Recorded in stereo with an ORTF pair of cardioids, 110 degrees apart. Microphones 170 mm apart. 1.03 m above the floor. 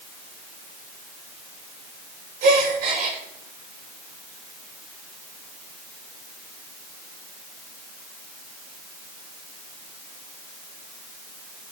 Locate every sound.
2.4 s a gasp: 70° right, 4 m